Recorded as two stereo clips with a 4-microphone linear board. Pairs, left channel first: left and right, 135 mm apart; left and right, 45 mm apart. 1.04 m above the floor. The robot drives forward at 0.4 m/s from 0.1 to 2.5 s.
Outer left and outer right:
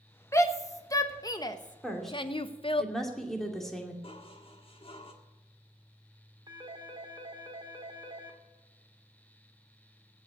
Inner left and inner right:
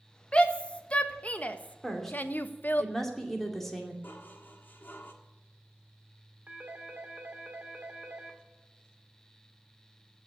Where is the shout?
20° left (ahead or behind), 1.4 m; by 2.8 s 40° left (ahead or behind), 0.8 m.